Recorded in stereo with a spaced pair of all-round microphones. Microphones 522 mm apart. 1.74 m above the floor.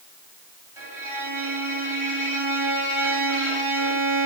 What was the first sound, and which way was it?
A violin, 75° right (ahead or behind).